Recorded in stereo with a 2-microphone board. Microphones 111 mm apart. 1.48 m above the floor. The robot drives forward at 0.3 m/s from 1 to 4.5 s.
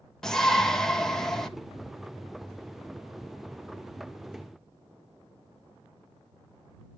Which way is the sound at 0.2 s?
5° left (ahead or behind).